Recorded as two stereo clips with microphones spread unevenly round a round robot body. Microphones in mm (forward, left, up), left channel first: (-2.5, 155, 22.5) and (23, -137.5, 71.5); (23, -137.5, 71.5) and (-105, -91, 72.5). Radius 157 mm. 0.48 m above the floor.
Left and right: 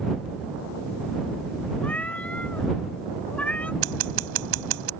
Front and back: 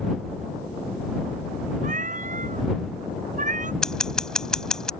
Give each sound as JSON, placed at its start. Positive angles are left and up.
{"t": 1.8, "sound": "a cat meowing", "azimuth_deg": 180}
{"t": 3.8, "sound": "scissors", "azimuth_deg": -105}